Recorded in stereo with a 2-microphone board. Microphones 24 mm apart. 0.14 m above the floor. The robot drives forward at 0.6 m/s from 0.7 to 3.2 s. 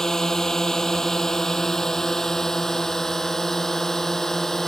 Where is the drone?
20° left (ahead or behind).